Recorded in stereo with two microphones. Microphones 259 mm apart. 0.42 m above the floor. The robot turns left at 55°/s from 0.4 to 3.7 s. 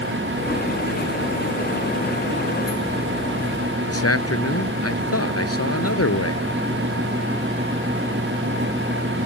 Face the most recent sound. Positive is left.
turn(degrees=65)  # may be behind; listen again after turning